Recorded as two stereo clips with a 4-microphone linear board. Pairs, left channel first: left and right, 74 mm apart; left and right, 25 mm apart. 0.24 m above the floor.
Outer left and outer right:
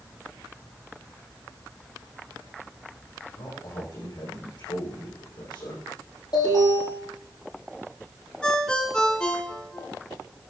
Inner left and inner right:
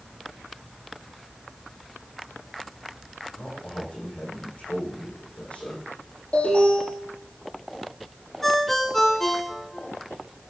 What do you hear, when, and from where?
3.4 s a man speaking: 85° left, 7 m
6.3 s an alarm: 65° left (ahead or behind), 7.5 m
8.4 s a ringtone: 10° left (ahead or behind), 1.7 m